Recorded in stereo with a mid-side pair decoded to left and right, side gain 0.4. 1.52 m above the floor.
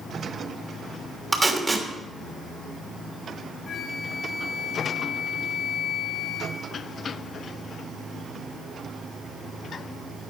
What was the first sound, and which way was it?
Tape being pulled, 25° right.